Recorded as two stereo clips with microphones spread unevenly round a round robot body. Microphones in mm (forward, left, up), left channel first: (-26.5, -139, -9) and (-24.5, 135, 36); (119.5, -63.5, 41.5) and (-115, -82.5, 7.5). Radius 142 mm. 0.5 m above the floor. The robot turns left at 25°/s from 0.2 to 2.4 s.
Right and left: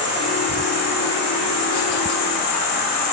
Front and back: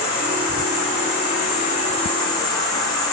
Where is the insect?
20° right, 1.3 m; by 3.1 s 75° right, 1.3 m.